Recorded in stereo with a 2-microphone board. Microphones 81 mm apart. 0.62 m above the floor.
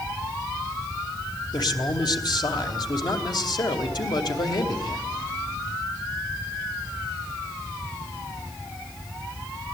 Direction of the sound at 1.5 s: 60° left (ahead or behind).